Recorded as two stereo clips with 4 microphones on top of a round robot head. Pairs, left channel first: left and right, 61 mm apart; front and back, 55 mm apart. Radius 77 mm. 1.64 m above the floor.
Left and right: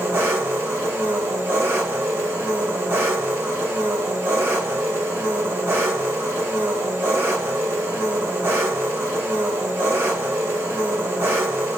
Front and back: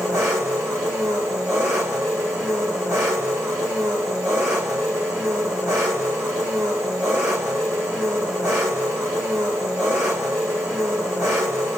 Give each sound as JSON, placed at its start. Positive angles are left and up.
{"t": 0.0, "sound": "an engine running", "azimuth_deg": -140, "distance_m": 0.9}